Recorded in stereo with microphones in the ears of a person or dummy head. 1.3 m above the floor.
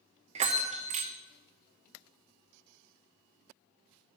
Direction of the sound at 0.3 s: 35° right (ahead or behind).